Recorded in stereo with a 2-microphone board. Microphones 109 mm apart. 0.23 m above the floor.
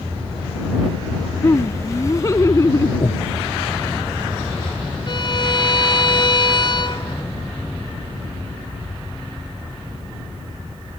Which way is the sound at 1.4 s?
25° left (ahead or behind).